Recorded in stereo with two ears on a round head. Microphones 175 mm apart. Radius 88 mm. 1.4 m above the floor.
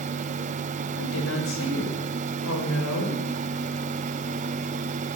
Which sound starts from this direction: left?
A woman speaking, at 1.0 s.